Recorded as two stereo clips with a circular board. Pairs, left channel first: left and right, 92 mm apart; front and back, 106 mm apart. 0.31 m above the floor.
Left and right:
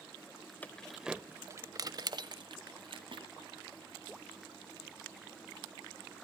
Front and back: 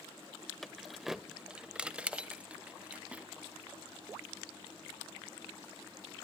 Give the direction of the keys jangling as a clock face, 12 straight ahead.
9 o'clock.